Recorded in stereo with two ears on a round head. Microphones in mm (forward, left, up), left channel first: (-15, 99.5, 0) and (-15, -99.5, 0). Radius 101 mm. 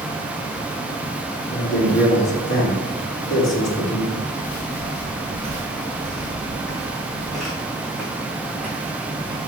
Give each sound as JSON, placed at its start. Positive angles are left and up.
{"t": 1.5, "sound": "a man speaking", "side_deg": 60, "distance_m": 3.0}
{"t": 4.1, "sound": "footsteps", "side_deg": 15, "distance_m": 1.4}